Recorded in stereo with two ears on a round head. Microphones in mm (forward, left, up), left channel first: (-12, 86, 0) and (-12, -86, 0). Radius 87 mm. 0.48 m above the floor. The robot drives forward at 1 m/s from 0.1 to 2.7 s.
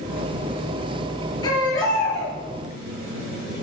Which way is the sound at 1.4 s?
25° left (ahead or behind).